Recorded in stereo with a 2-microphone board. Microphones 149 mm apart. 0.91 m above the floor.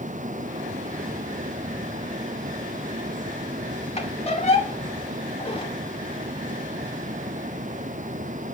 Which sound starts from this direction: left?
A squeak, at 4.0 s.